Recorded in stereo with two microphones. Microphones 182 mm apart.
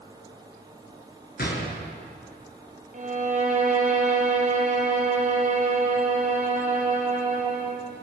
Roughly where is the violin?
Right.